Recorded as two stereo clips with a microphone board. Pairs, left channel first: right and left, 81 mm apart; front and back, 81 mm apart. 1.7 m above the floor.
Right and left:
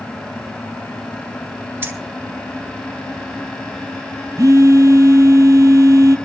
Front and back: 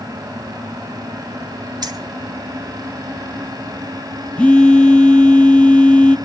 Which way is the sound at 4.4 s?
70° left.